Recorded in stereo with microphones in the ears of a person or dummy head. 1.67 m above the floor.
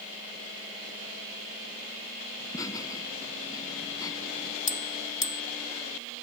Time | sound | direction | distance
2.4 | laughter | 20° left (ahead or behind) | ?
4.7 | a bell | 35° left (ahead or behind) | ?